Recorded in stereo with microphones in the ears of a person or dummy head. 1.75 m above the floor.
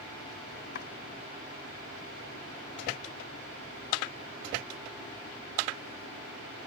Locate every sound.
0.8 s chopping: 55° left (ahead or behind)